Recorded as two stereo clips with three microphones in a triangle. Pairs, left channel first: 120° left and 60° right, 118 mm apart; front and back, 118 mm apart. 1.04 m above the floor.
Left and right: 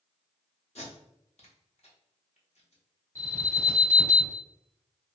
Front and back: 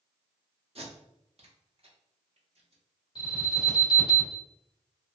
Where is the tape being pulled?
145° left, 0.8 m.